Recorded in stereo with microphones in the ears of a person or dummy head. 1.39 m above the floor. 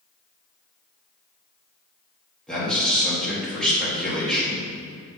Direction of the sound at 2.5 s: Centre (ahead or behind).